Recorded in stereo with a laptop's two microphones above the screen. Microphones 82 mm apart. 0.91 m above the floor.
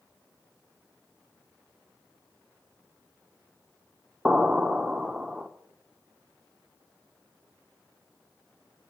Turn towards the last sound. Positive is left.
turn(degrees=-5)  # may be behind; listen again after turning